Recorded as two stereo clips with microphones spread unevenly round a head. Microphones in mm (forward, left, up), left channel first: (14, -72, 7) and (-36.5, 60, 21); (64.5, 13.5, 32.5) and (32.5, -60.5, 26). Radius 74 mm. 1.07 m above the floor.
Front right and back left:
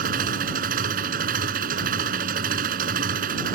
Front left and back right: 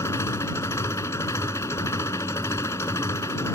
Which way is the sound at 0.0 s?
140° left.